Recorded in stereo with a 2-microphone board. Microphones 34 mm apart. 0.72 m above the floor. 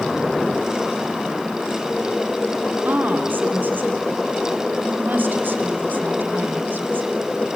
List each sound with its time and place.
2.9 s a woman speaking: 70° right (ahead or behind), 1.8 m